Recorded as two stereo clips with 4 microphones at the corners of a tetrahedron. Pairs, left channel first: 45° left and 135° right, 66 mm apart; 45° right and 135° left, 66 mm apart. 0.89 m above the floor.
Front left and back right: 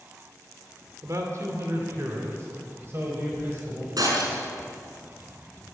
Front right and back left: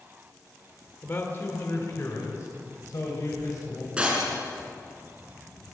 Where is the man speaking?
100° right, 2 m; by 3.9 s 80° right, 4.5 m.